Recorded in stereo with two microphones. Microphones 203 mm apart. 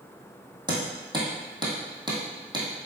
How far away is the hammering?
About 2 m.